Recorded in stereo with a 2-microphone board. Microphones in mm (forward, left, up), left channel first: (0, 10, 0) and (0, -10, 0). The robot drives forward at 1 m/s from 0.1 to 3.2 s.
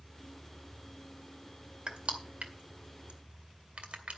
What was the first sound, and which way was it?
Crushing, 60° right (ahead or behind).